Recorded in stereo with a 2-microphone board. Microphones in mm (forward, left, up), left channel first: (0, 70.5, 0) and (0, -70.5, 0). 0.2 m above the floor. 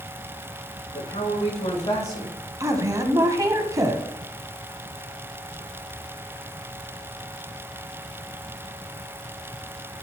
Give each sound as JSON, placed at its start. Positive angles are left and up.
{"t": 0.9, "sound": "a man speaking", "side_deg": 50, "distance_m": 5.0}
{"t": 2.6, "sound": "a woman speaking", "side_deg": -25, "distance_m": 1.3}